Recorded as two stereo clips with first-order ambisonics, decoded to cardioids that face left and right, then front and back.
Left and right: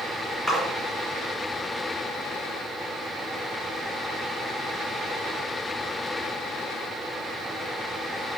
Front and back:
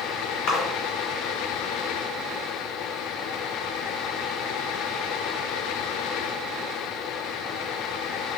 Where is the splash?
Straight ahead, 1.3 m.